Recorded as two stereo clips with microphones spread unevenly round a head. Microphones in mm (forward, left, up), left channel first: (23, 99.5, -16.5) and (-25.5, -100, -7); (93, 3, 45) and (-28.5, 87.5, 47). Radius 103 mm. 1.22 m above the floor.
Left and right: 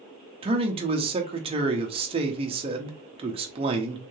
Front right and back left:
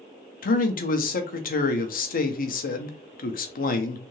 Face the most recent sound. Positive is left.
turn(degrees=-40)